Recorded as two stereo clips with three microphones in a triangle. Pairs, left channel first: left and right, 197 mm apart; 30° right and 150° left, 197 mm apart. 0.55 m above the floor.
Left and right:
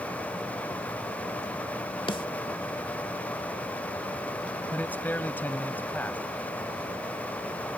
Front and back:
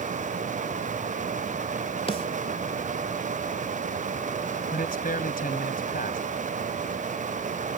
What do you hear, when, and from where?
2.1 s a snare drum: 30° left
4.7 s a man speaking: 10° left